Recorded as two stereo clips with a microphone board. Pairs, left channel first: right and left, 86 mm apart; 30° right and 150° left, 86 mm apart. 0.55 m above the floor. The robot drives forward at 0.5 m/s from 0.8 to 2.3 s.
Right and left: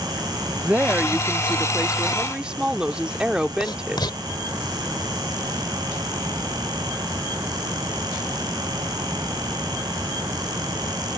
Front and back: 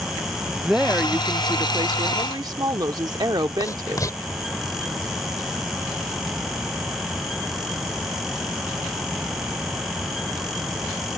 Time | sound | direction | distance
0.7 | a woman speaking | 90° left | ?
3.6 | writing | 75° right | ?